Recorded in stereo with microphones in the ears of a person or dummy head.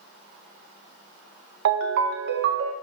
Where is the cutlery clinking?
I don't hear cutlery clinking.